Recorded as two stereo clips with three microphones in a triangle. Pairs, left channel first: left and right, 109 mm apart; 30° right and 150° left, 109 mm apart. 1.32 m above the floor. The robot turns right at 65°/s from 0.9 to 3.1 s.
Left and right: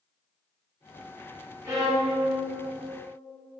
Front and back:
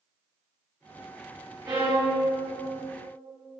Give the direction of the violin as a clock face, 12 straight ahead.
5 o'clock.